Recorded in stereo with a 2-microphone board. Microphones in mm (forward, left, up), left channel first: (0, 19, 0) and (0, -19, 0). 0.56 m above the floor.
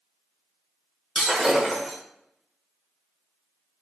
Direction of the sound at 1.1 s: 5° right (ahead or behind).